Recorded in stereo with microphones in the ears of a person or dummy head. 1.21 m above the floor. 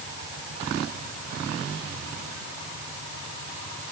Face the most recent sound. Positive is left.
No sound to turn to.